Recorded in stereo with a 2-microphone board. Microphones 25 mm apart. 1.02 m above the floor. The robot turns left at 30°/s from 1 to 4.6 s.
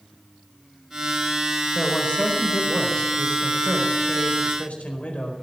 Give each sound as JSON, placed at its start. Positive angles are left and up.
{"t": 1.8, "sound": "a man speaking", "azimuth_deg": 160, "distance_m": 4.5}